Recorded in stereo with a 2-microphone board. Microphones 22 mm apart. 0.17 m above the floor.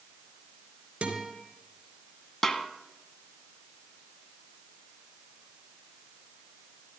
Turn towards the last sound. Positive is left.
turn(degrees=25)  # may be behind; listen again after turning